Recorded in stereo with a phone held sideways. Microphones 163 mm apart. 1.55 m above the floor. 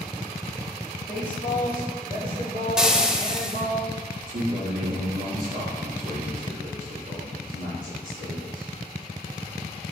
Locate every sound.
1.1 s a woman speaking: 30° right (ahead or behind), 3 m; by 3.8 s 40° right (ahead or behind), 4 m
2.8 s frying: 5° right (ahead or behind), 0.7 m
4.3 s a man speaking: 65° right (ahead or behind), 3 m